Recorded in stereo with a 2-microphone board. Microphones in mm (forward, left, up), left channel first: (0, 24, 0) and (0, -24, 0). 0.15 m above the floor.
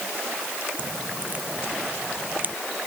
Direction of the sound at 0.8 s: 35° right (ahead or behind).